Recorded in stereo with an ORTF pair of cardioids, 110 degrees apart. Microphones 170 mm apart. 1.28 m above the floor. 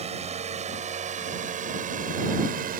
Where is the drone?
40° right; by 2.8 s 55° right.